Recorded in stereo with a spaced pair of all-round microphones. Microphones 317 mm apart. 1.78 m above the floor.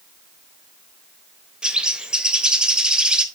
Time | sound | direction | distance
1.6 | a bird | 5° right (ahead or behind) | 0.9 m